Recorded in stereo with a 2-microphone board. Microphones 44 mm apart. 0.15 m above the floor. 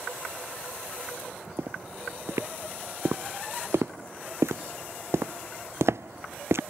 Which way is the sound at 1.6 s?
70° right (ahead or behind).